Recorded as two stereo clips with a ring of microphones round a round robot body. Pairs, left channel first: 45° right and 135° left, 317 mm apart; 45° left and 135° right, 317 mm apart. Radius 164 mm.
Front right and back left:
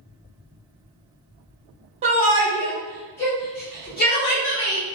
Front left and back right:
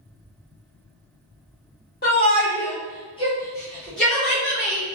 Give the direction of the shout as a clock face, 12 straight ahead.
9 o'clock.